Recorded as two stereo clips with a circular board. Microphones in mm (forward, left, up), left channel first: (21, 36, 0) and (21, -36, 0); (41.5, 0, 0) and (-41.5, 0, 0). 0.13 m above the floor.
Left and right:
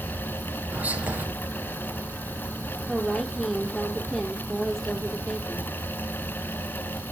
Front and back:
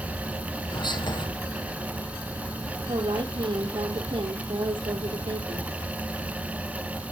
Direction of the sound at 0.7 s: 20° right.